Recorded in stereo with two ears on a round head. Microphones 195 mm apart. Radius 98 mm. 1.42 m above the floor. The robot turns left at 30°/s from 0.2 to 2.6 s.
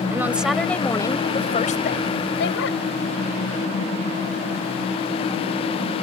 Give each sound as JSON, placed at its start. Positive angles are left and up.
{"t": 0.1, "sound": "a woman speaking", "azimuth_deg": -170}